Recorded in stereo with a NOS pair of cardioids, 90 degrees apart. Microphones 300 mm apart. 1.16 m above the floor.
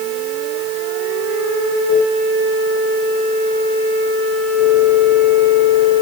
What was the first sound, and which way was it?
Only background noise.